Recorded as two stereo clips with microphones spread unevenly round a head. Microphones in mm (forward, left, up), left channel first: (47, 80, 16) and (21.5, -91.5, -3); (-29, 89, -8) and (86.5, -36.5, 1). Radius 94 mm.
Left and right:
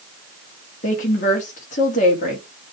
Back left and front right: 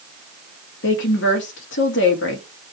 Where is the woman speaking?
135° left, 2.5 m.